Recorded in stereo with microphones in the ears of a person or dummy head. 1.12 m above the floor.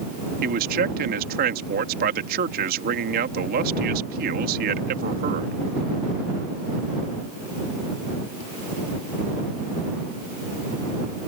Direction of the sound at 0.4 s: 50° right (ahead or behind).